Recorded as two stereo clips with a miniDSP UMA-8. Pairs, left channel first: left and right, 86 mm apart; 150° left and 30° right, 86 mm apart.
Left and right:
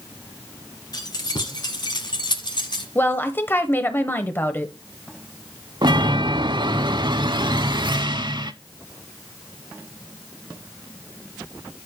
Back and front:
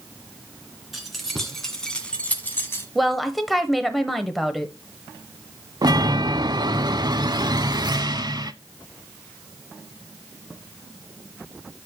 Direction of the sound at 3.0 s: 60° left.